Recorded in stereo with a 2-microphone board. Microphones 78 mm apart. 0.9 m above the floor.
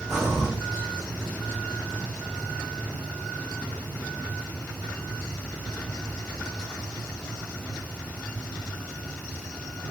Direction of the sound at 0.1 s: 10° right (ahead or behind).